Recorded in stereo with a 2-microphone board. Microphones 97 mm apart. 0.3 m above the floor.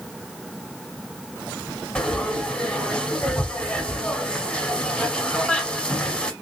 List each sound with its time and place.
1.9 s frying: 10° left (ahead or behind), 0.9 m